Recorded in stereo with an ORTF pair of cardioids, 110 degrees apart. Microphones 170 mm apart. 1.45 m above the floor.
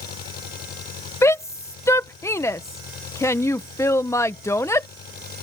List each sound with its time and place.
0.0 s an engine running: 60° left
1.2 s a shout: 15° left